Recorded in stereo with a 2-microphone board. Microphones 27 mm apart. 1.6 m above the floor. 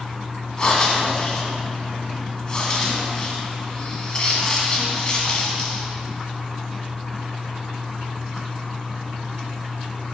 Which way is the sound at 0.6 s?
30° left (ahead or behind).